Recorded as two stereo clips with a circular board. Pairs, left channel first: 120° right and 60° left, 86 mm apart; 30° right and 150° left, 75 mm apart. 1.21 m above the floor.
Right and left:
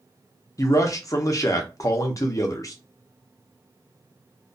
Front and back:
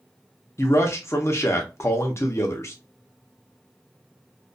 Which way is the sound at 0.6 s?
75° right.